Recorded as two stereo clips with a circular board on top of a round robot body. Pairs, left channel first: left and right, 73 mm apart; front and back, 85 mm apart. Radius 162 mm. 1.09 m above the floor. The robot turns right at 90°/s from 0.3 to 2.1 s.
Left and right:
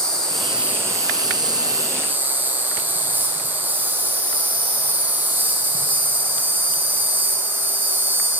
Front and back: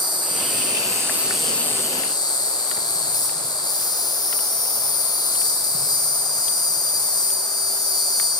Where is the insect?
170° left, 1.8 m; by 8.4 s 30° right, 1.8 m.